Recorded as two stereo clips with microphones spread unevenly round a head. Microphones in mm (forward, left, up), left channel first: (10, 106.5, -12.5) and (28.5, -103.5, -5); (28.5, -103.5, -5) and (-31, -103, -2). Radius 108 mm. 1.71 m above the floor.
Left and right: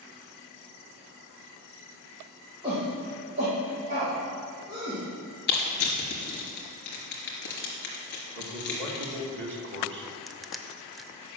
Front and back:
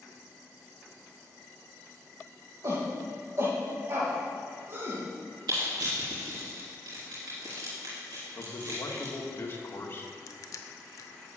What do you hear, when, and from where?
2.6 s a shout: 155° right, 2.0 m; by 5.0 s 140° right, 3.5 m
5.5 s crushing: 135° left, 3 m
8.3 s a man speaking: 50° right, 2.5 m
10.3 s crushing: 5° left, 0.7 m